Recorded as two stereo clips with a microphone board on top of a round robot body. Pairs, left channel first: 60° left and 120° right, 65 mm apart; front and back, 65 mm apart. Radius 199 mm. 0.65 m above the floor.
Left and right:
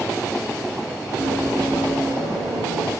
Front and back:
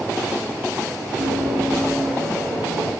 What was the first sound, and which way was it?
Running footsteps, 175° left.